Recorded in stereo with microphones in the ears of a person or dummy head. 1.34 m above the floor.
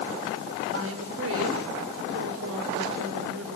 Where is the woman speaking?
75° right (ahead or behind), 4.5 m.